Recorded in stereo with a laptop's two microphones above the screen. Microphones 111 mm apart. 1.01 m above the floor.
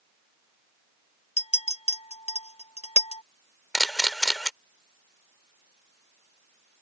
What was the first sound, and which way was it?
A clink, 75° left (ahead or behind).